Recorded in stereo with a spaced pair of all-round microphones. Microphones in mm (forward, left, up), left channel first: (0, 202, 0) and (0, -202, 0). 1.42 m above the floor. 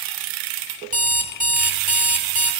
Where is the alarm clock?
20° right (ahead or behind), 1.6 m.